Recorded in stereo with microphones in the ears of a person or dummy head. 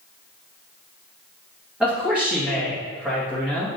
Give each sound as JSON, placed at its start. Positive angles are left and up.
{"t": 1.8, "sound": "a man speaking", "side_deg": -10, "distance_m": 2.0}